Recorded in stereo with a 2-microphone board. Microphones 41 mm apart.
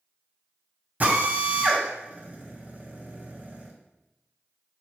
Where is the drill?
40° right (ahead or behind), 2 m.